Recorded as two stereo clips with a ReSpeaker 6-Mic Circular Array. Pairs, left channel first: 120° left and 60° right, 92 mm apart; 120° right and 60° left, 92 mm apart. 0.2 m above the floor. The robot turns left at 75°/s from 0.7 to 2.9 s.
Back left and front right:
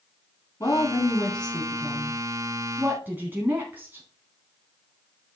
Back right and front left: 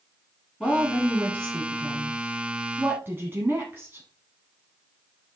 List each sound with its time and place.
0.6 s a woman speaking: 165° left, 1.5 m; by 4.0 s straight ahead, 1.5 m